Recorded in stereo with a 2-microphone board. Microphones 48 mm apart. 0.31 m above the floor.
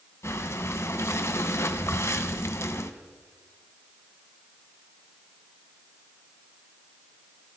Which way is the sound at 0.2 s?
75° left (ahead or behind).